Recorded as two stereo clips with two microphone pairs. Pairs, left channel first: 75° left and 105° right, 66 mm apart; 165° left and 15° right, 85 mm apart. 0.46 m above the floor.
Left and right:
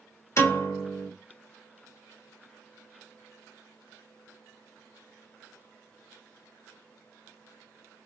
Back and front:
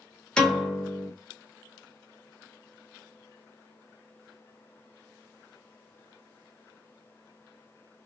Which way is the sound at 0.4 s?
90° left.